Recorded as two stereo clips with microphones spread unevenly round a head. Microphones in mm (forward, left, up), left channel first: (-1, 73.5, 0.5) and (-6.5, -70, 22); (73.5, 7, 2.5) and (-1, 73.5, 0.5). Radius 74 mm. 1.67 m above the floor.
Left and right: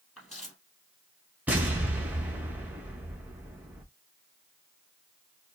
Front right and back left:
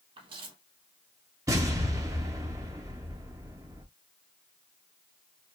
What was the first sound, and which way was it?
Footsteps, straight behind.